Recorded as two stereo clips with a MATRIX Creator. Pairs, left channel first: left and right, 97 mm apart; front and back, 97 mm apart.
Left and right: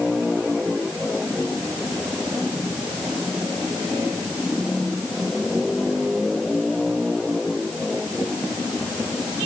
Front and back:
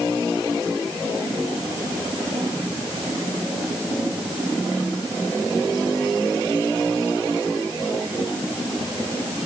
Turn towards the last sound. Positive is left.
No sound to turn to.